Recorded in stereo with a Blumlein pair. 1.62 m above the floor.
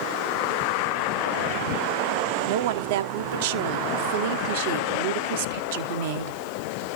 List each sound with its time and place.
2.5 s a woman speaking: 50° right, 1.1 m